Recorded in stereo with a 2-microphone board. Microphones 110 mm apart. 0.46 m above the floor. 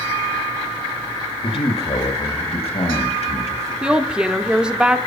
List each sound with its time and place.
1.4 s a man speaking: 50° left (ahead or behind), 1.6 m; by 3.7 s 70° left (ahead or behind), 3 m
3.8 s a woman speaking: 10° right (ahead or behind), 0.7 m